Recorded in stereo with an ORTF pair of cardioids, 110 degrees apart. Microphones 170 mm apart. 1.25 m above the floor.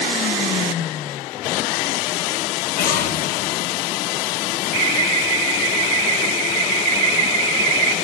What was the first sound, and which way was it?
An explosion, 60° left.